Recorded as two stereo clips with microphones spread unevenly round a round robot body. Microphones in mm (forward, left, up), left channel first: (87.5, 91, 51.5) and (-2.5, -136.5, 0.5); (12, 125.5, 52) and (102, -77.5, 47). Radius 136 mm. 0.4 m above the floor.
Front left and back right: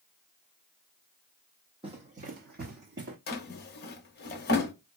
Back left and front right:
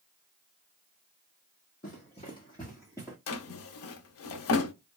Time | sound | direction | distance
1.8 | running footsteps | 175° left | 0.8 m
3.3 | a drawer | 125° left | 0.5 m